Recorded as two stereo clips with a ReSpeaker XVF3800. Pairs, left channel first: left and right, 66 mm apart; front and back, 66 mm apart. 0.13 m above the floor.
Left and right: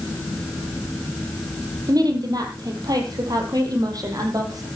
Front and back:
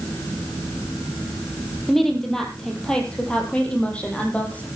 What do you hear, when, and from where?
1.9 s a woman speaking: 90° right, 3.5 m; by 4.7 s 70° right, 4.5 m